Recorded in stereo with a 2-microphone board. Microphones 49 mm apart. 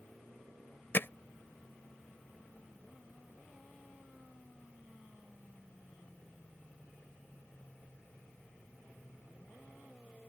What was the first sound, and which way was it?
Hammering, 45° left (ahead or behind).